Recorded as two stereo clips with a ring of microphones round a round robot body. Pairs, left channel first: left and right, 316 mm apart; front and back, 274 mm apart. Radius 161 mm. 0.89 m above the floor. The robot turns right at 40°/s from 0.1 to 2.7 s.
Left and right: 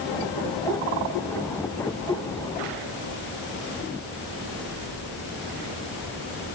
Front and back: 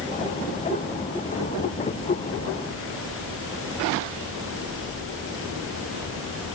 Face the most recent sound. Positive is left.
No sound to turn to.